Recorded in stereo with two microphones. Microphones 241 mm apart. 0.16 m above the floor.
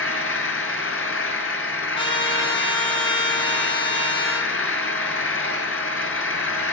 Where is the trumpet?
20° left (ahead or behind), 0.9 m.